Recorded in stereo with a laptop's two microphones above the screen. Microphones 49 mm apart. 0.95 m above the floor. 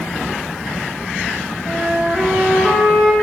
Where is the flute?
5° right (ahead or behind), 6.5 m.